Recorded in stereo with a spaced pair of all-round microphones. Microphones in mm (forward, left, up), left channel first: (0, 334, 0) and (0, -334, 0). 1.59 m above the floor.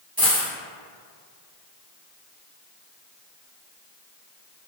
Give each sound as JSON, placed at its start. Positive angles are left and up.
{"t": 0.2, "sound": "a dropped coin", "side_deg": -30, "distance_m": 1.8}